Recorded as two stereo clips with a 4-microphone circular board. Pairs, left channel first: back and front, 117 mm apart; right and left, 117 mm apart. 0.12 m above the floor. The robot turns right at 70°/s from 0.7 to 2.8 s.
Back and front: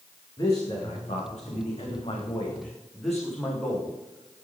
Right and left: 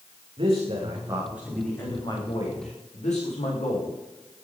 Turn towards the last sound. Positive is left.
turn(degrees=-90)